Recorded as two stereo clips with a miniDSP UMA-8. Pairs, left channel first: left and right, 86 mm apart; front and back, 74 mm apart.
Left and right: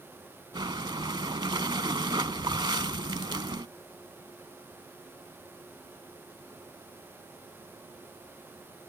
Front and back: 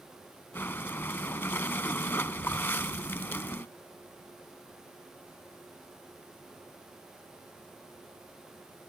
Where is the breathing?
60° right.